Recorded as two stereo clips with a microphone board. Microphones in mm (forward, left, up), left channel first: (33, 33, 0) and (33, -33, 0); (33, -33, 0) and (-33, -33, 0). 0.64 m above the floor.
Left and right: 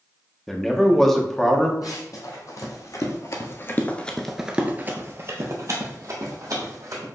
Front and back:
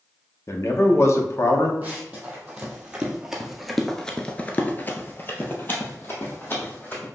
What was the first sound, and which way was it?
A man speaking, 5° left.